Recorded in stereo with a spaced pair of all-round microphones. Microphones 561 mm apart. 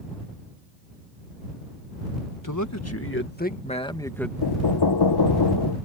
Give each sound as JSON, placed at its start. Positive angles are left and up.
{"t": 2.4, "sound": "a man speaking", "side_deg": 35}
{"t": 4.4, "sound": "knocking", "side_deg": 45}